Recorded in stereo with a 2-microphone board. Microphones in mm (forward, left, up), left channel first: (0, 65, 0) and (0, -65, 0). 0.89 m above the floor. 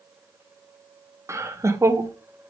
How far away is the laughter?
About 0.5 m.